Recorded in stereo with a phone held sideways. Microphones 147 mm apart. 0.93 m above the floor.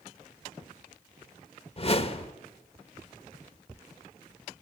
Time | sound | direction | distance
1.8 | a whoosh | 40° left (ahead or behind) | 1.1 m